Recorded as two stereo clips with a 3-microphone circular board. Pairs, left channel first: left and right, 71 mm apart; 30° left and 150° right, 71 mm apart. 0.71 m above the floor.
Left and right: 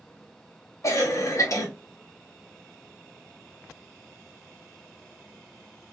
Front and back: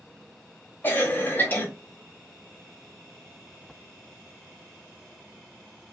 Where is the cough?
80° left, 0.9 m.